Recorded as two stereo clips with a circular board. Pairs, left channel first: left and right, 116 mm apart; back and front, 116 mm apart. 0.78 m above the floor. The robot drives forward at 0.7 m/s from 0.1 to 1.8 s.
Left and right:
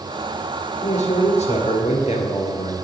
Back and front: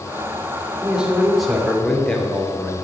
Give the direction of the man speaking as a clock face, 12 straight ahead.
9 o'clock.